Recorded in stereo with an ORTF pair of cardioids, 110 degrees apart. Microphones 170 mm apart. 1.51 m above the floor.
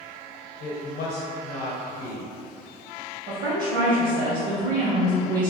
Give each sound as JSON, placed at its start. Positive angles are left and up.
{"t": 0.6, "sound": "a woman speaking", "azimuth_deg": 70, "distance_m": 0.7}
{"t": 3.3, "sound": "a woman speaking", "azimuth_deg": -60, "distance_m": 1.1}